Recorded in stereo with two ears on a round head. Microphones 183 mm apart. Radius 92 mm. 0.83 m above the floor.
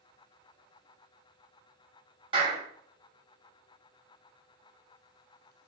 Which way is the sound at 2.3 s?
25° right (ahead or behind).